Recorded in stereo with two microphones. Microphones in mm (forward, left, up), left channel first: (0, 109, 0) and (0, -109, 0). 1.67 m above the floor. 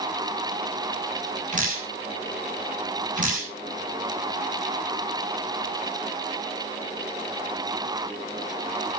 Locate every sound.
1.5 s dripping: 35° right (ahead or behind), 7 m